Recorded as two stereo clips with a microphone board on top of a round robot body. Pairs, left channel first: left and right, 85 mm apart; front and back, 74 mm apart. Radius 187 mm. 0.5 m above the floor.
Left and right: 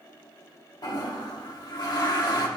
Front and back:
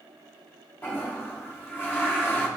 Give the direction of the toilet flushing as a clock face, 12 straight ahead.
10 o'clock.